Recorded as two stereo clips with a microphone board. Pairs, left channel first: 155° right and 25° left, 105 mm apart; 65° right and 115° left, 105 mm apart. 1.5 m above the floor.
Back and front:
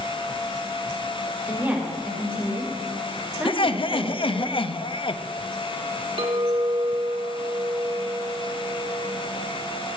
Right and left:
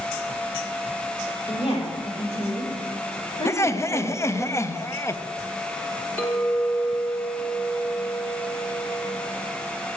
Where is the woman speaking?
40° right, 3.5 m.